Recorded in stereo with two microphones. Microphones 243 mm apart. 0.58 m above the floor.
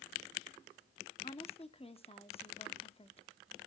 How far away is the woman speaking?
About 0.7 m.